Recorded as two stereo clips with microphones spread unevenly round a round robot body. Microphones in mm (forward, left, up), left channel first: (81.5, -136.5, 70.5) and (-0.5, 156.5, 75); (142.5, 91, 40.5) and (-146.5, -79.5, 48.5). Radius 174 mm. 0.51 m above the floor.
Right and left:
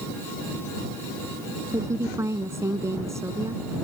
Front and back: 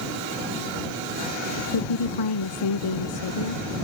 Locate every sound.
1.7 s a woman speaking: 25° left